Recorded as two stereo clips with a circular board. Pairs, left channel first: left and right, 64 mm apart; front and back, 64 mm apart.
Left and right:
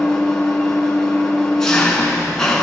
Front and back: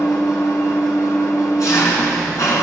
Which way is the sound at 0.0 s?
10° left.